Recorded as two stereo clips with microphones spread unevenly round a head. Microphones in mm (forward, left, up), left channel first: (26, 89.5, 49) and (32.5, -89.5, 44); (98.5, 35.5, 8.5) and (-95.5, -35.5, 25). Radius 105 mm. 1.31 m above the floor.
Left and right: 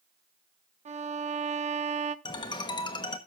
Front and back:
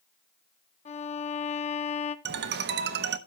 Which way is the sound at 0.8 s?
35° right.